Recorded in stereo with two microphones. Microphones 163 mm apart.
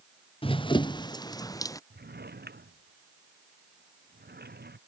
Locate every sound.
0.4 s running footsteps: 35° left (ahead or behind); by 1.8 s 20° left (ahead or behind)
1.9 s a drawer: 80° right